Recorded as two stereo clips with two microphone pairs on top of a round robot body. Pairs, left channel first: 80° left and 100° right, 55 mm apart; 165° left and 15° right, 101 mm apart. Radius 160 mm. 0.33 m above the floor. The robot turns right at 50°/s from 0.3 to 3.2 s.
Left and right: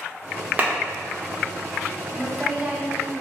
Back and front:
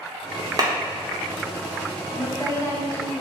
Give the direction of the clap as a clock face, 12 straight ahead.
2 o'clock.